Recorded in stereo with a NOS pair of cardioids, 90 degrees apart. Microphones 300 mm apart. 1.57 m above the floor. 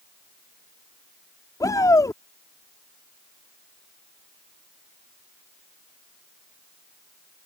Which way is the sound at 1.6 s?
10° left.